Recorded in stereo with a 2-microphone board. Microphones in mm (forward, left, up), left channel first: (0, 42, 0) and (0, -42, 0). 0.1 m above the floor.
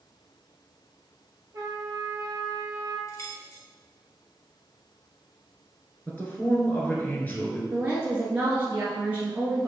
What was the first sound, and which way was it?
A trumpet, 40° right (ahead or behind).